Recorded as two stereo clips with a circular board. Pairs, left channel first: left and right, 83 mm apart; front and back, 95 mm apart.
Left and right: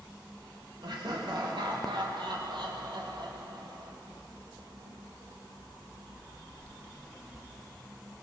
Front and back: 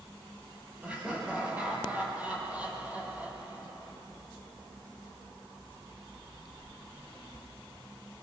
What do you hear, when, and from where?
0.8 s laughter: 105° right, 8.5 m